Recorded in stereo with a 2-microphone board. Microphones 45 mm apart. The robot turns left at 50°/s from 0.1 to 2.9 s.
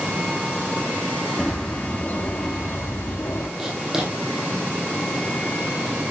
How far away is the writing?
About 2.5 m.